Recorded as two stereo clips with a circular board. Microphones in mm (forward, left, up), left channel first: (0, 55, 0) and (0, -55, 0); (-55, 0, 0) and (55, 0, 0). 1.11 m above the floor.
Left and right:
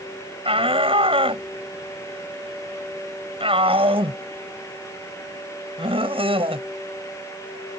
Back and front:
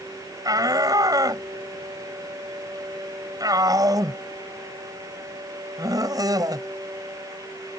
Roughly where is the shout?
Ahead right.